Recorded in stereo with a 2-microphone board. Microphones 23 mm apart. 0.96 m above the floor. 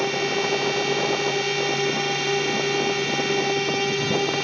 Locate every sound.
0.0 s a drone: 5° left (ahead or behind)